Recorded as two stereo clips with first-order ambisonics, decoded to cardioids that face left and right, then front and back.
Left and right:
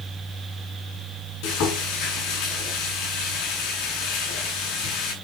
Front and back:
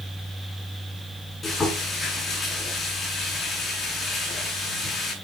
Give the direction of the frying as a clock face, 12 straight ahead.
10 o'clock.